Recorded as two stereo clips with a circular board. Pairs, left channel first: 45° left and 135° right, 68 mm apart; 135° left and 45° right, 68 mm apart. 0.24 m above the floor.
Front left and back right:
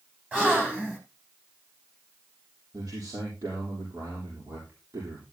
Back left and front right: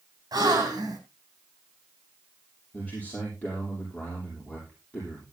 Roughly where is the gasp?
Ahead right.